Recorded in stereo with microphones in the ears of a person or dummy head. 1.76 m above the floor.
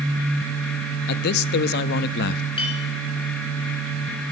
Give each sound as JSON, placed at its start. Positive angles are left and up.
{"t": 1.1, "sound": "a man speaking", "side_deg": 55, "distance_m": 0.5}
{"t": 2.6, "sound": "a clink", "side_deg": 35, "distance_m": 2.0}